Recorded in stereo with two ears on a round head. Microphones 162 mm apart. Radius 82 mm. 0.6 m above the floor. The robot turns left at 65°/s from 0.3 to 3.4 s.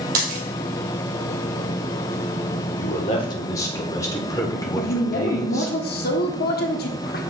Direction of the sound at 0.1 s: 50° right (ahead or behind).